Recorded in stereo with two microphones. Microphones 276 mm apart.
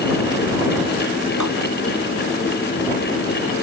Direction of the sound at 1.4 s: 90° left.